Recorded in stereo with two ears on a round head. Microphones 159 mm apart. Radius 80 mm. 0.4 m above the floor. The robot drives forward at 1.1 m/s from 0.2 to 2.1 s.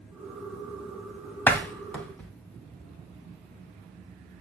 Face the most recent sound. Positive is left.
turn(degrees=10)  # may be behind; listen again after turning